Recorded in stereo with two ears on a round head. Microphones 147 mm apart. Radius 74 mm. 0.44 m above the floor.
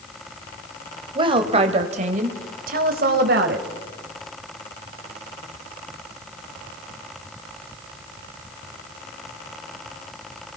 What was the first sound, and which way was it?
A woman speaking, 30° right (ahead or behind).